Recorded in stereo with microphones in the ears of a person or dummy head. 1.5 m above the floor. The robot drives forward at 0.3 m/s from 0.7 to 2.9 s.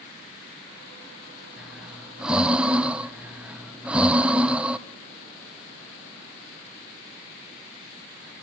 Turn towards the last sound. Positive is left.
turn(degrees=-10)  # may be behind; listen again after turning